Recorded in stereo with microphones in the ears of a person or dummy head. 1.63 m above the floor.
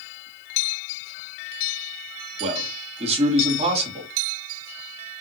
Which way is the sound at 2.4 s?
35° right (ahead or behind).